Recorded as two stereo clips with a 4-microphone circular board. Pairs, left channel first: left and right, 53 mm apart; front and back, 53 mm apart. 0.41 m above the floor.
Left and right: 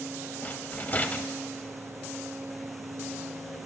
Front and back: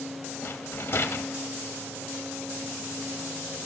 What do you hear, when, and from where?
0.4 s a rattle: 35° left, 0.7 m